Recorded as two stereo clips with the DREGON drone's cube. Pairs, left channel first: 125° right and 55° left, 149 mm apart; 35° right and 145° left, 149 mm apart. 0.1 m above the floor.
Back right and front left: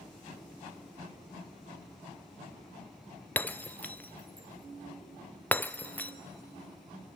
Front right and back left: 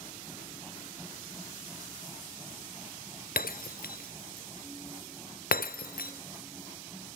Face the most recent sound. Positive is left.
turn(degrees=-45)